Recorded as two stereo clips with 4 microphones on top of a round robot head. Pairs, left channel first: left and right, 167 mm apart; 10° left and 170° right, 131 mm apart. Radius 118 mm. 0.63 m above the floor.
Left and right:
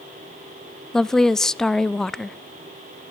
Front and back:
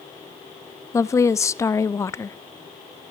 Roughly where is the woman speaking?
Ahead.